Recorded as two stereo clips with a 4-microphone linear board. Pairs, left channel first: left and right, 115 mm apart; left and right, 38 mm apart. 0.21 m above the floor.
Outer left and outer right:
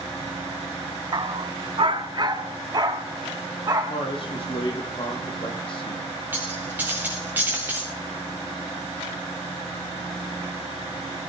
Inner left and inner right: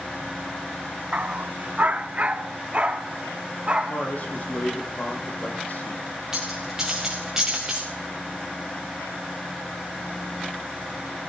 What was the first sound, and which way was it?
A dog barking, 45° right (ahead or behind).